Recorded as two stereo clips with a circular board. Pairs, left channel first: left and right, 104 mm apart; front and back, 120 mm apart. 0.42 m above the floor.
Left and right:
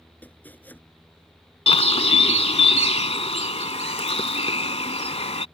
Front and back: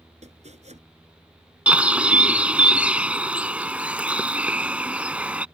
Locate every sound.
0.2 s chopping: 165° left
1.7 s a bird: 105° left